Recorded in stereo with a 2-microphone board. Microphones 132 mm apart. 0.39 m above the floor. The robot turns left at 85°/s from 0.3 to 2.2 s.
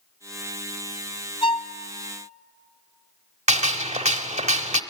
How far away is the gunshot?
About 0.8 m.